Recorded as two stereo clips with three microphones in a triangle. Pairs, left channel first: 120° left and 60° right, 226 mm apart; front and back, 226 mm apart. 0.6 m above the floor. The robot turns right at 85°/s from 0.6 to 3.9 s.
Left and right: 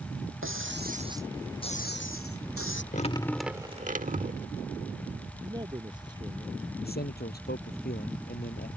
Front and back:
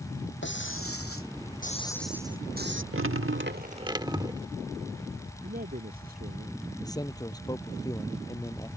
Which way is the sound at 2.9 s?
170° left.